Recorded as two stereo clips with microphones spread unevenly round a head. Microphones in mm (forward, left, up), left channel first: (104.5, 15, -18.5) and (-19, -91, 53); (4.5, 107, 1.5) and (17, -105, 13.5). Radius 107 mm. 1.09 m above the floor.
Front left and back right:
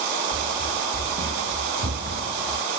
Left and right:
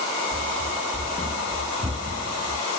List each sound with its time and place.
0.3 s running footsteps: 175° right; by 2.7 s 160° right